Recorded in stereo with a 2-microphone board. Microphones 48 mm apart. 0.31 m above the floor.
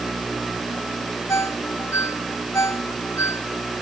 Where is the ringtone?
75° left (ahead or behind).